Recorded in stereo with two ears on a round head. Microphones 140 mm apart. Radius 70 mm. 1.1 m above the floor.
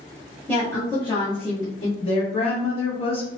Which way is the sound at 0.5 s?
10° left (ahead or behind).